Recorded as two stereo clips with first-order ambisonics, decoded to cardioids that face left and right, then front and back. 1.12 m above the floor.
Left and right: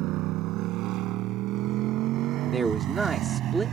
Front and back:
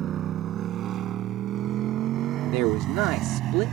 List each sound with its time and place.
0.0 s a motorcycle: 125° right; by 3.7 s 140° right
2.4 s a man speaking: 170° right